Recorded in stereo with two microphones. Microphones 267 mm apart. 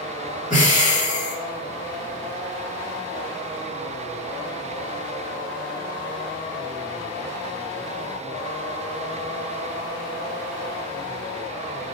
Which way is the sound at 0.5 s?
30° left (ahead or behind).